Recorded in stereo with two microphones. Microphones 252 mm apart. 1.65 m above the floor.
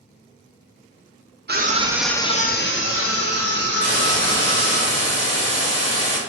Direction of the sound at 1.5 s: 40° right (ahead or behind).